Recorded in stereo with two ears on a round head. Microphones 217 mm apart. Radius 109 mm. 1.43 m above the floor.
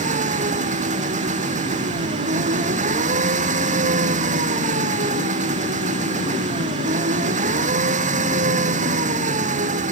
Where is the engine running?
30° right (ahead or behind).